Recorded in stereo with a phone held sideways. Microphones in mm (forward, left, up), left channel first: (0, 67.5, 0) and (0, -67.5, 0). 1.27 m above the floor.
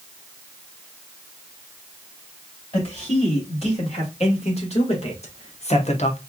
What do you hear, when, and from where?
2.7 s a man speaking: 50° left (ahead or behind), 3 m; by 6.2 s 55° left (ahead or behind), 0.7 m